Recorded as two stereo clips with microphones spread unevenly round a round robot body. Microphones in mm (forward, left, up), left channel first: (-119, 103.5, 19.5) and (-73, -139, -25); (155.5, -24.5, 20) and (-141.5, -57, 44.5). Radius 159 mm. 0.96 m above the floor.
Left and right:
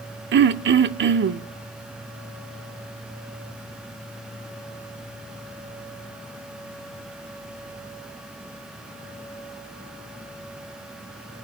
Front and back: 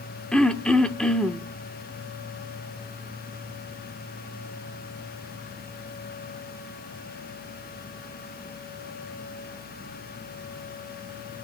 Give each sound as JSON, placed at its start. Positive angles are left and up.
{"t": 0.3, "sound": "throat clearing", "azimuth_deg": -85, "distance_m": 0.6}